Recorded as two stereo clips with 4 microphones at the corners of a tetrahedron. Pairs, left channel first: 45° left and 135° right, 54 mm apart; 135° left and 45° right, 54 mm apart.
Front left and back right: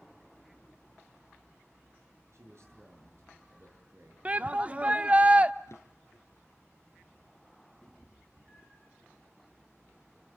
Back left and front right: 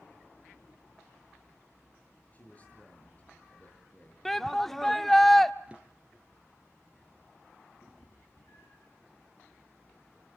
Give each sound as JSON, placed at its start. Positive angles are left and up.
{"t": 2.3, "sound": "a man speaking", "azimuth_deg": -165, "distance_m": 7.0}
{"t": 4.2, "sound": "a shout", "azimuth_deg": -145, "distance_m": 0.7}
{"t": 5.7, "sound": "a drawer", "azimuth_deg": 20, "distance_m": 2.5}
{"t": 7.8, "sound": "a cat meowing", "azimuth_deg": 140, "distance_m": 9.0}